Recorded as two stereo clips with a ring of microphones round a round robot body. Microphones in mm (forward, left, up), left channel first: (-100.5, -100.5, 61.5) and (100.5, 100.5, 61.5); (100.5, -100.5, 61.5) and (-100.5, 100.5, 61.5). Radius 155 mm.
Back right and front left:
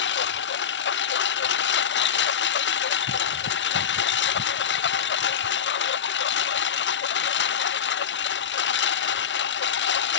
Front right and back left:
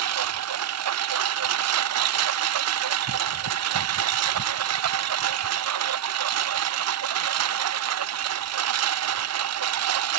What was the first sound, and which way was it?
A lawn mower, 170° left.